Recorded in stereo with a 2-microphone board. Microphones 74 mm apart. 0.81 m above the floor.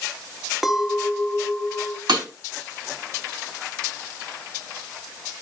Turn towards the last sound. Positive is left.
turn(degrees=-85)